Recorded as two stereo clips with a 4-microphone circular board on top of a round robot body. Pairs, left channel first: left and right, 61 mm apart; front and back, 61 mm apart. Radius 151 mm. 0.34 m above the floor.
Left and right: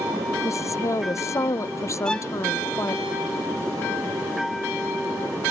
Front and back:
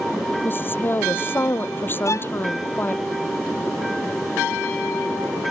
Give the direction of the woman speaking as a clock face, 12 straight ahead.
10 o'clock.